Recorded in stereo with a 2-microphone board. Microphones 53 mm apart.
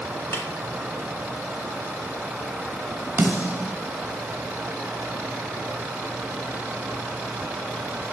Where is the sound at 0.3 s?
55° left (ahead or behind), 1.5 m.